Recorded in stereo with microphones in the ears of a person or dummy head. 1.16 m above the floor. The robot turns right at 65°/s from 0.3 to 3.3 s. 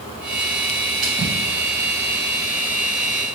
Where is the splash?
Centre (ahead or behind), 2 m; by 1.3 s 20° right (ahead or behind), 2 m.